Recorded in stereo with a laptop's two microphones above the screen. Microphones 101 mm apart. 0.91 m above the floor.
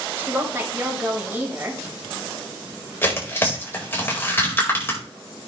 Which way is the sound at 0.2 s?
20° right (ahead or behind).